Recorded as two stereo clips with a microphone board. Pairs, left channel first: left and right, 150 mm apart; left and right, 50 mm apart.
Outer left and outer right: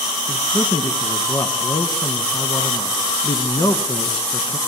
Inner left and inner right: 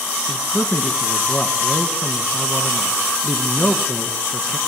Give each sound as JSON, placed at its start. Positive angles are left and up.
{"t": 0.3, "sound": "a man speaking", "side_deg": 25, "distance_m": 1.3}